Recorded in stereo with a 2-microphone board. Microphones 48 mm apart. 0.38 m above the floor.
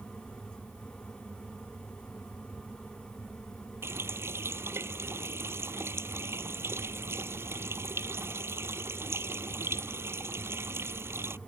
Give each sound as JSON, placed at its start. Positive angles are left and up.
{"t": 3.8, "sound": "a running tap", "side_deg": -55}